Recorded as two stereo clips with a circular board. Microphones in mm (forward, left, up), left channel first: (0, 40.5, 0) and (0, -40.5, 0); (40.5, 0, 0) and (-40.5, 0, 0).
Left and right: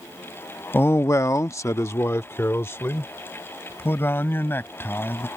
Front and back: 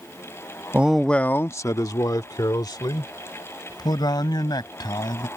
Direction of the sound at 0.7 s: 130° left.